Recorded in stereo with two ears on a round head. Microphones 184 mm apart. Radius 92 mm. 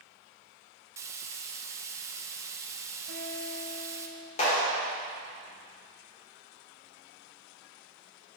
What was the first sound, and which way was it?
Frying, 15° right (ahead or behind).